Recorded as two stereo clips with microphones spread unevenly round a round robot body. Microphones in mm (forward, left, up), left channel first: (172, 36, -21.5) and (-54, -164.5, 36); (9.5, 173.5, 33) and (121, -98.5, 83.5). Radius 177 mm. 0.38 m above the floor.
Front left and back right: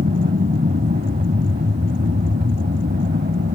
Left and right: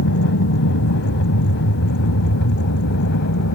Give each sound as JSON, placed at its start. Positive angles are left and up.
{"t": 0.0, "sound": "an aircraft", "azimuth_deg": 155}